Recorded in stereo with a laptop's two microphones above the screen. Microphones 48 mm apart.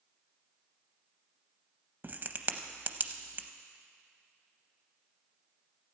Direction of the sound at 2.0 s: 40° right (ahead or behind).